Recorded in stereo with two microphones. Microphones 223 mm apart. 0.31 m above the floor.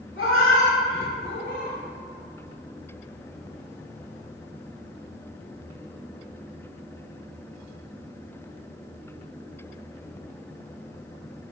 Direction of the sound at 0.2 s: 65° left (ahead or behind).